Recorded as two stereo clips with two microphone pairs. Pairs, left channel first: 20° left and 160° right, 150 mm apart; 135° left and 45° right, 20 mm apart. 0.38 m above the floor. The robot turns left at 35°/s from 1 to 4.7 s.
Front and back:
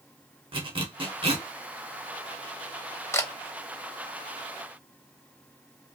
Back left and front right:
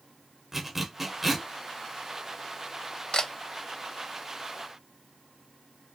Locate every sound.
0.5 s a zipper: 120° right, 0.7 m; by 1.5 s 140° right, 0.7 m
3.1 s a camera shutter: 95° left, 0.6 m; by 3.3 s 85° left, 0.6 m